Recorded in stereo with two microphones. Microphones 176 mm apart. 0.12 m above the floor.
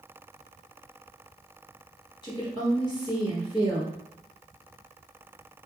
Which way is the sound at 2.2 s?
25° left (ahead or behind).